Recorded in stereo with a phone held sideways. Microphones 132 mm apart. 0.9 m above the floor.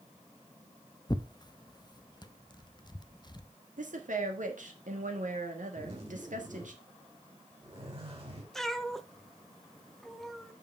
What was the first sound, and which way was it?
Tearing paper, 35° left (ahead or behind).